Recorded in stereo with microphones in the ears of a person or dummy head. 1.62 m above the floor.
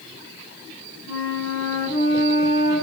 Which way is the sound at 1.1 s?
80° left.